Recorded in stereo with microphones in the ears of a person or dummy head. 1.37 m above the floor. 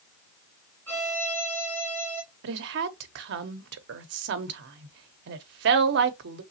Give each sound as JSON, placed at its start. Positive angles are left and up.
{"t": 0.9, "sound": "a violin", "side_deg": 10, "distance_m": 2.5}
{"t": 2.4, "sound": "a woman speaking", "side_deg": -65, "distance_m": 0.8}